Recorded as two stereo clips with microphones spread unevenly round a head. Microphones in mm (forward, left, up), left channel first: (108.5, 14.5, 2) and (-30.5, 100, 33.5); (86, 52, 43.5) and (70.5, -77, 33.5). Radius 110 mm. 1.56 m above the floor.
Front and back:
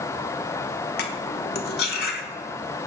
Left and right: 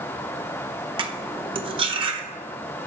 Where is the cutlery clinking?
55° right, 0.9 m.